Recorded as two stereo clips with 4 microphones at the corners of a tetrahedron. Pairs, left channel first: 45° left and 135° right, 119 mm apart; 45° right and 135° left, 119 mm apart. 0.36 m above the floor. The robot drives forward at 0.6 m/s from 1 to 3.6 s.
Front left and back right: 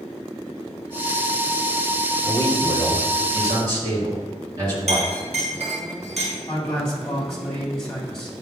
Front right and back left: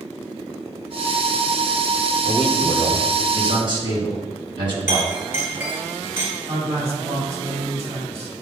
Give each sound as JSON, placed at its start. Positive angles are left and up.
{"t": 2.2, "sound": "a man speaking", "azimuth_deg": 170, "distance_m": 2.5}
{"t": 4.9, "sound": "a clink", "azimuth_deg": -155, "distance_m": 2.5}
{"t": 6.5, "sound": "a man speaking", "azimuth_deg": 130, "distance_m": 2.5}